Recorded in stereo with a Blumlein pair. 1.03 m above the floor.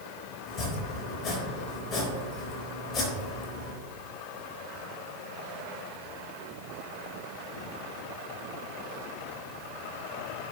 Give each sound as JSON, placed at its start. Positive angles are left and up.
{"t": 0.5, "sound": "chopping", "azimuth_deg": 20, "distance_m": 3.5}